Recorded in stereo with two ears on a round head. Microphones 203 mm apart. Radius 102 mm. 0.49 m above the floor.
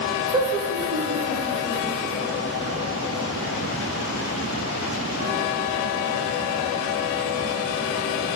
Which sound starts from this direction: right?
Laughter, at 0.3 s.